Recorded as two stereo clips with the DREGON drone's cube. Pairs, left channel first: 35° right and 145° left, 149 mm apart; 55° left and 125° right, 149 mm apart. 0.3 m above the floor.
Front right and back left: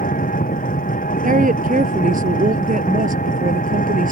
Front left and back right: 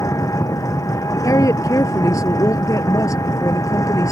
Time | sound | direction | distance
0.0 | an engine running | 10° right | ?
1.2 | a woman speaking | 125° left | ?